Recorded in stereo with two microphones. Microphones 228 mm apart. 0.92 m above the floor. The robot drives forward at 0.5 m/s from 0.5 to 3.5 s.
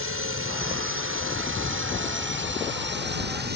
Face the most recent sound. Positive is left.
turn(degrees=-45)  # may be behind; listen again after turning